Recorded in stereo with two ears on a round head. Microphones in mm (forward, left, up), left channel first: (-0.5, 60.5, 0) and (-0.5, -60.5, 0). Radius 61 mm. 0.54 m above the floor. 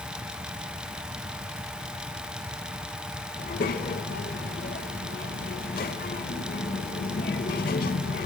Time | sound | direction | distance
3.4 | a child speaking | 70° left (ahead or behind) | 1.5 m